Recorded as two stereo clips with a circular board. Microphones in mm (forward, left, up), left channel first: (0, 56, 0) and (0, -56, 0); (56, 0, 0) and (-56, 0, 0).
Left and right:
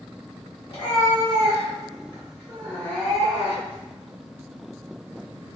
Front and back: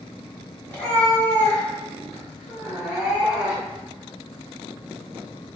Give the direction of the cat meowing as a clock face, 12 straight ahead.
10 o'clock.